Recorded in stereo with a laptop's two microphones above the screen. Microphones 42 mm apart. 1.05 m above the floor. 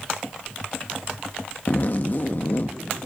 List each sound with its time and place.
1.7 s a zipper: 45° left (ahead or behind), 0.7 m